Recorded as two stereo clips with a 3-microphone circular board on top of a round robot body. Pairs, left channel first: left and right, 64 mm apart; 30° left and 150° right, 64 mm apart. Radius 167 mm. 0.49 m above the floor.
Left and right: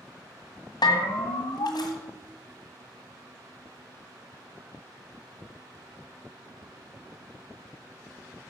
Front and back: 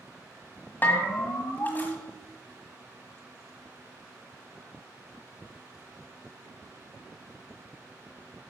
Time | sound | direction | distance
0.8 | a bell | 90° left | 1.5 m